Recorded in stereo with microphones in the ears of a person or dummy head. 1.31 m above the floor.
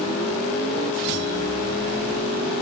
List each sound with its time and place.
Only background noise.